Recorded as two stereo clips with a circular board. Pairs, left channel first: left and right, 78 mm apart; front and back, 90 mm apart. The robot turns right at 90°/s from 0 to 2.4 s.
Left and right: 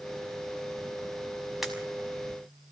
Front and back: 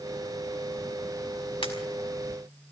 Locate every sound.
1.6 s a pop: 5° right, 5.5 m; by 1.7 s 5° left, 5.5 m